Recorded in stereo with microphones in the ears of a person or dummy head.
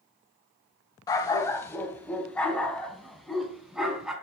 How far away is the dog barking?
About 1.8 m.